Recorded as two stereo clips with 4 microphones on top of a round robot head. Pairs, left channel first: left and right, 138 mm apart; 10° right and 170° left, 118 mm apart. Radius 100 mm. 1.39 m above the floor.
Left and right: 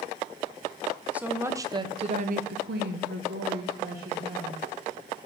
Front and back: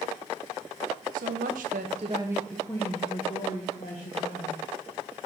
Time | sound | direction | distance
1.1 | a woman speaking | 170° right | 0.8 m